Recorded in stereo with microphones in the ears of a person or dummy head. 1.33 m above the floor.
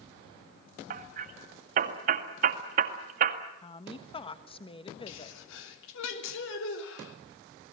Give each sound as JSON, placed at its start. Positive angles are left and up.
{"t": 0.9, "sound": "hammering", "side_deg": -45, "distance_m": 1.9}
{"t": 3.6, "sound": "a woman speaking", "side_deg": 25, "distance_m": 1.3}
{"t": 5.1, "sound": "a sneeze", "side_deg": 70, "distance_m": 3.5}